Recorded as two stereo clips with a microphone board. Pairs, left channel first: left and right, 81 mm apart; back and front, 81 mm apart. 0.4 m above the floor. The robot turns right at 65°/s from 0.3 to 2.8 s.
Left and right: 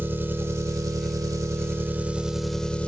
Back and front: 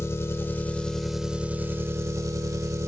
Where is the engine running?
140° right, 0.8 m; by 2.9 s 20° left, 0.8 m.